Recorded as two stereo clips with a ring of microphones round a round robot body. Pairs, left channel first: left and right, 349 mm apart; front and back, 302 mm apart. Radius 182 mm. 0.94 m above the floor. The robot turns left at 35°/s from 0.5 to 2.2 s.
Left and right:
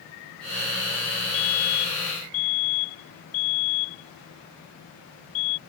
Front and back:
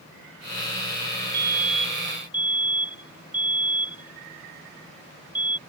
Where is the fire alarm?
125° left; by 5.6 s 95° left.